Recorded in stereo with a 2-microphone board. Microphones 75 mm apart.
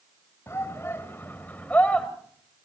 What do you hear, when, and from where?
0.5 s a shout: 35° left (ahead or behind), 2.5 m; by 2.1 s 15° left (ahead or behind), 2.5 m